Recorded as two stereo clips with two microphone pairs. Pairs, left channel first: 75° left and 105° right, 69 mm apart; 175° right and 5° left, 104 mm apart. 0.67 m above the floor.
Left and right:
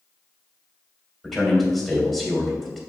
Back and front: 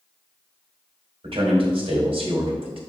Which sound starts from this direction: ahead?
A man speaking, at 1.2 s.